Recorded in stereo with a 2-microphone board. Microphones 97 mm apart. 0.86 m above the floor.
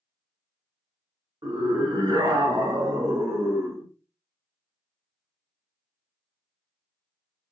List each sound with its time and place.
1.4 s a scream: 40° right (ahead or behind), 1.3 m; by 3.9 s 25° right (ahead or behind), 1.0 m